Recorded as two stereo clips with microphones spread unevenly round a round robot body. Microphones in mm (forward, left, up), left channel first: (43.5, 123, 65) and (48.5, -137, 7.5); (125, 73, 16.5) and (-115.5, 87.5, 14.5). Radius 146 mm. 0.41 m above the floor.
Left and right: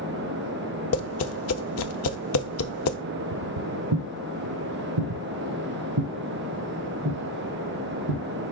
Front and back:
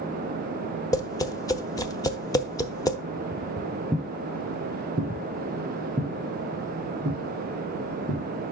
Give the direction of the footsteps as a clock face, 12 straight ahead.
3 o'clock.